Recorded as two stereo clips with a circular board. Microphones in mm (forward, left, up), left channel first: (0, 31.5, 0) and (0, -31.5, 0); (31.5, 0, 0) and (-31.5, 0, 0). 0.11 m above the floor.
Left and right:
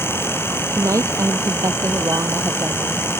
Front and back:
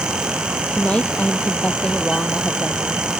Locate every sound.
0.7 s a woman speaking: 70° right